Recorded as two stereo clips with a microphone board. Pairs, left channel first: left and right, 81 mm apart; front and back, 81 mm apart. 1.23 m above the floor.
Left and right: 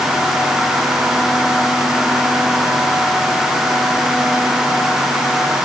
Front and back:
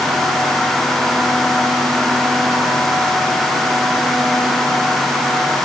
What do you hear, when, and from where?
Only background noise.